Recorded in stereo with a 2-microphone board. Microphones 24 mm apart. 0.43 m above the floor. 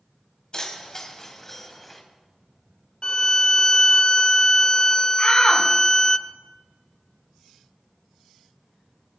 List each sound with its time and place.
0.5 s keys jangling: 35° left (ahead or behind), 2 m; by 2.0 s 10° left (ahead or behind), 2 m
3.0 s a violin: 40° left (ahead or behind), 0.5 m
5.2 s a shout: 55° left (ahead or behind), 3.5 m